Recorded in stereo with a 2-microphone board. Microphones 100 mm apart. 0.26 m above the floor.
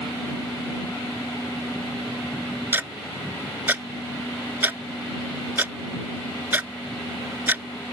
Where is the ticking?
20° right (ahead or behind).